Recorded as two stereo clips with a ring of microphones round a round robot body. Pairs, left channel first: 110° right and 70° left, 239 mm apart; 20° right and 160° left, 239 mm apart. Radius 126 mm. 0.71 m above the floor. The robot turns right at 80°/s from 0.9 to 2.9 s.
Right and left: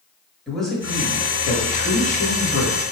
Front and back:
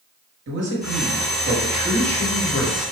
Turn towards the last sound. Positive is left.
turn(degrees=-40)